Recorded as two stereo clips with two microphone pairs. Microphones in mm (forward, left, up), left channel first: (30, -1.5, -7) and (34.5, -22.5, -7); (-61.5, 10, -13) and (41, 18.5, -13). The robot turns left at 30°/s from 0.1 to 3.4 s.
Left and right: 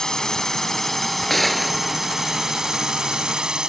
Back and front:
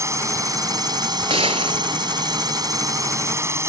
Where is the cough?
No cough in this recording.